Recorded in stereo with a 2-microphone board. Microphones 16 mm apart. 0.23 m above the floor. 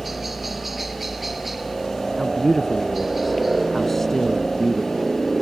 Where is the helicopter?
15° right (ahead or behind).